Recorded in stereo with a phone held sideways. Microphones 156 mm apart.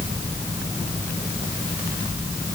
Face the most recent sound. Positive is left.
No sound to turn to.